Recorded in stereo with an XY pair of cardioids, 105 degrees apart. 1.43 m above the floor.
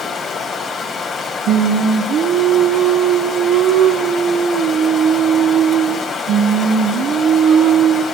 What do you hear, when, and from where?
0.0 s running water: 60° left, 3.5 m
1.5 s singing: 70° right, 0.8 m